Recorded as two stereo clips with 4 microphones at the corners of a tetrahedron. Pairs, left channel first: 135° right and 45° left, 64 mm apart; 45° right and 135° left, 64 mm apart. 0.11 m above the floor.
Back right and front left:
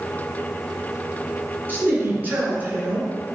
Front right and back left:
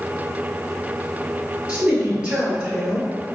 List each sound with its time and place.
1.7 s a man speaking: 75° left, 1.9 m